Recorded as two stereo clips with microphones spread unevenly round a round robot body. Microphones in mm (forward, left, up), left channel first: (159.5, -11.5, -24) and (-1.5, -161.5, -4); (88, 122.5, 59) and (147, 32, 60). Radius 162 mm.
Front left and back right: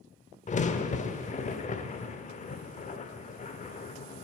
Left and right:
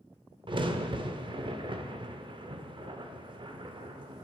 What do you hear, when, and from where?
0.5 s a crack: 20° right, 0.6 m